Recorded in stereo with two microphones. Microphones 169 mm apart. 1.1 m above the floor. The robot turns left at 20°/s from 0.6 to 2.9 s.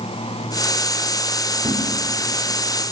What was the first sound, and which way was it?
A thud, 35° right (ahead or behind).